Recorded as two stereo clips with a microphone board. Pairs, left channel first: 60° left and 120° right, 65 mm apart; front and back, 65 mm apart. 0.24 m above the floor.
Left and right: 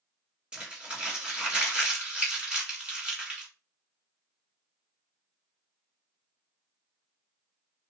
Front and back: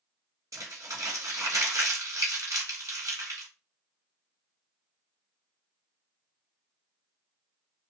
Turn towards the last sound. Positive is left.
turn(degrees=170)